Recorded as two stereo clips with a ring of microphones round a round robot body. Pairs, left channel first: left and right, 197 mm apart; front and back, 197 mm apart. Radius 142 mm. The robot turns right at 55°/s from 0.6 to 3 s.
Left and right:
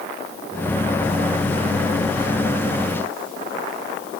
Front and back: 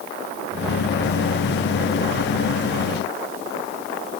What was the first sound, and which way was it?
Only background noise.